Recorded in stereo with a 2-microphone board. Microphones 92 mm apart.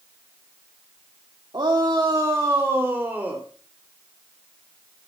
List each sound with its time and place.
1.5 s a shout: 50° right (ahead or behind), 1.9 m; by 3.4 s 15° right (ahead or behind), 2.5 m